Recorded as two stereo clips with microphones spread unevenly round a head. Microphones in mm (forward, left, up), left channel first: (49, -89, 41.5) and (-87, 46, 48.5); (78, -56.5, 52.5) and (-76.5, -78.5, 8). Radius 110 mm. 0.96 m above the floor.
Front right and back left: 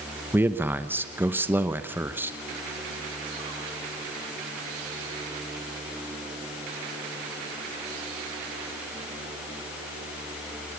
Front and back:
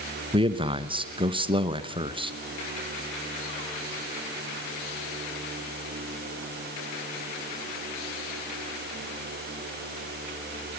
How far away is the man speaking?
About 1.1 m.